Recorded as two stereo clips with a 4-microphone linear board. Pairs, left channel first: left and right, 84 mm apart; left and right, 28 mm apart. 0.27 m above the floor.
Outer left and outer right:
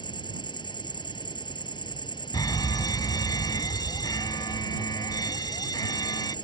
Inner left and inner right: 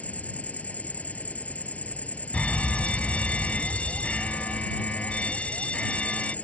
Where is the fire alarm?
50° left (ahead or behind).